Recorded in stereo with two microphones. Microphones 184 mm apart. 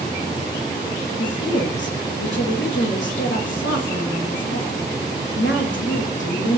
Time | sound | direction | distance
1.2 | a woman speaking | 85° left | 1.2 m